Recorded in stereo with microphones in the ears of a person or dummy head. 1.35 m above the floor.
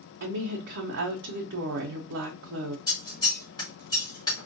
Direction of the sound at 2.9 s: 20° left (ahead or behind).